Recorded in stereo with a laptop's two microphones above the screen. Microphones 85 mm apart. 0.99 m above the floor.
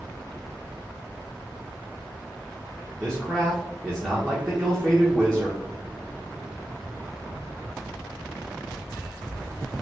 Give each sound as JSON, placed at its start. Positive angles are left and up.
{"t": 3.0, "sound": "a man speaking", "side_deg": -10, "distance_m": 0.8}